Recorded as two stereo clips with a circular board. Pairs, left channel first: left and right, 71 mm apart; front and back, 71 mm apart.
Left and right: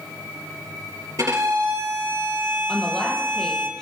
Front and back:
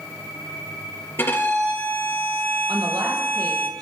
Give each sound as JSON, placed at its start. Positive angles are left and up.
{"t": 1.2, "sound": "a violin", "azimuth_deg": -55, "distance_m": 4.0}
{"t": 2.7, "sound": "a woman speaking", "azimuth_deg": 170, "distance_m": 4.0}